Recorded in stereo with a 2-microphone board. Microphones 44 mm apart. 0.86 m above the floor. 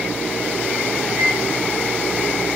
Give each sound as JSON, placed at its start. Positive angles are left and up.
{"t": 1.1, "sound": "a microwave", "side_deg": -20, "distance_m": 2.0}